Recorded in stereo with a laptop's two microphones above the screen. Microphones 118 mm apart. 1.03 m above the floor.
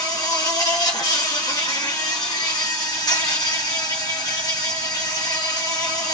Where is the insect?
30° left (ahead or behind), 1.1 m.